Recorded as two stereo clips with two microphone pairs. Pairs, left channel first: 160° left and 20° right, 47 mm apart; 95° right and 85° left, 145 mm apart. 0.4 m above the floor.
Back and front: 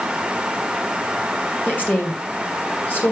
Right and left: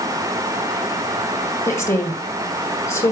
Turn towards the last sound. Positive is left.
turn(degrees=-165)